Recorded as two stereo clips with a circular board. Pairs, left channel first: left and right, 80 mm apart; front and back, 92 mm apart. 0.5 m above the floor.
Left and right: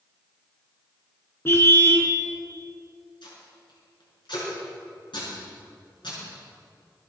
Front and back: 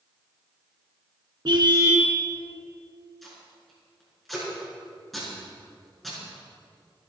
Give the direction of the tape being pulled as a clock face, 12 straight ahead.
9 o'clock.